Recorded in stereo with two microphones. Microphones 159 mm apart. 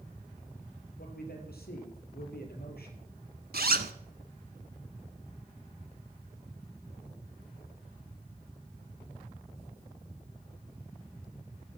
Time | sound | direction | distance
1.0 | a man speaking | 75° left (ahead or behind) | 6 m
3.5 | a zipper | 75° right (ahead or behind) | 1.2 m